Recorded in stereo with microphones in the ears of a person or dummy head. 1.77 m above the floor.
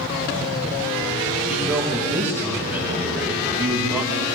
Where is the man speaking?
5° right (ahead or behind), 2.5 m.